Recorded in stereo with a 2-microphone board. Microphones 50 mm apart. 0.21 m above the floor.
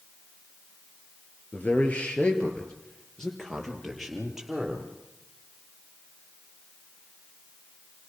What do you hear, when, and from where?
1.5 s a man speaking: 35° left (ahead or behind), 4 m; by 4.9 s 5° right (ahead or behind), 6 m